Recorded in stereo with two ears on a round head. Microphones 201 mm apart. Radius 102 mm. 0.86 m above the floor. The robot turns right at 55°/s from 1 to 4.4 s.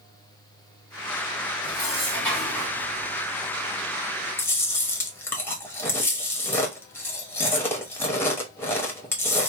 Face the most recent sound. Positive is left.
turn(degrees=10)  # may be behind; listen again after turning